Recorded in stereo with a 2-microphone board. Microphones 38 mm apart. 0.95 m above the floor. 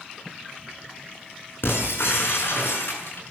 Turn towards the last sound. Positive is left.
turn(degrees=80)